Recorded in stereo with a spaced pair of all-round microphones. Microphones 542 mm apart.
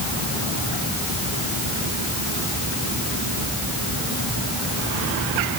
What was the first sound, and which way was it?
Only background noise.